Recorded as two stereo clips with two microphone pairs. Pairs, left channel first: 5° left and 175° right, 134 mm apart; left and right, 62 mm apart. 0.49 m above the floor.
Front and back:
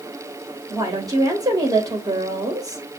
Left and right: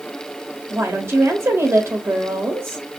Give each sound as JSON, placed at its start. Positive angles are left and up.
{"t": 0.7, "sound": "a woman speaking", "azimuth_deg": -115, "distance_m": 2.5}